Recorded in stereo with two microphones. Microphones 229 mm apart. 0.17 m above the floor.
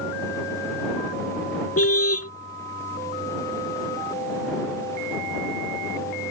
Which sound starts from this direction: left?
A car horn, at 1.8 s.